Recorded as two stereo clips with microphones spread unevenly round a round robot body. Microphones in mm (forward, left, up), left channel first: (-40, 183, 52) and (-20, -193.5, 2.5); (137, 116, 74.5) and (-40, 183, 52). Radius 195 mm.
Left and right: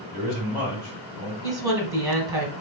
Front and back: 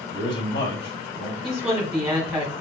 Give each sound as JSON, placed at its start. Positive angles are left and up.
{"t": 0.1, "sound": "a man speaking", "azimuth_deg": -5, "distance_m": 1.9}
{"t": 1.4, "sound": "a woman speaking", "azimuth_deg": -135, "distance_m": 1.5}